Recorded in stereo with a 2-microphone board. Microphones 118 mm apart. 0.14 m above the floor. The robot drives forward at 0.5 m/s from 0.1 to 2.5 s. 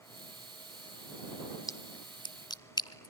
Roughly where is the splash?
Left.